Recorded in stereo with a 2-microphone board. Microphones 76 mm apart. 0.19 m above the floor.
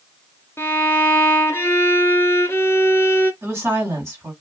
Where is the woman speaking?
35° right (ahead or behind), 2 m.